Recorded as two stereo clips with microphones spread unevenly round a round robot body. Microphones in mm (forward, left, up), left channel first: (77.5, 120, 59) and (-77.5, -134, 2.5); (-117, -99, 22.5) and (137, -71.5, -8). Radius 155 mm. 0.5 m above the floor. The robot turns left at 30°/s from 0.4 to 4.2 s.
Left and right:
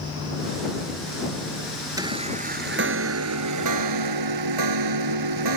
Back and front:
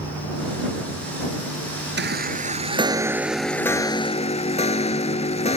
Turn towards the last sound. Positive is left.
turn(degrees=-110)